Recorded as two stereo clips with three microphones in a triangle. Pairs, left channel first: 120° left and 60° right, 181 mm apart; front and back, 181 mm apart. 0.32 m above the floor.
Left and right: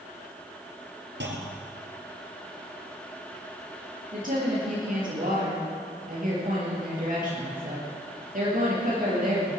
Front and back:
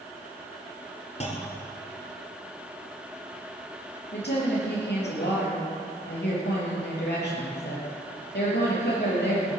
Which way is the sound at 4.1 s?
20° right.